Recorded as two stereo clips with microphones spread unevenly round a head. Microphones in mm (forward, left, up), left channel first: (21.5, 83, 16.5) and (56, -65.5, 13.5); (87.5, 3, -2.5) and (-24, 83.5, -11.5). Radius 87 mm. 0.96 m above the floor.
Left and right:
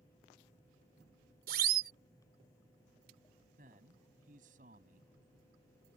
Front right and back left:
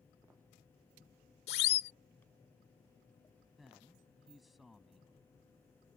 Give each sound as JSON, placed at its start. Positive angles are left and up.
{"t": 1.5, "sound": "a siren", "azimuth_deg": -55}
{"t": 3.6, "sound": "a man speaking", "azimuth_deg": -125}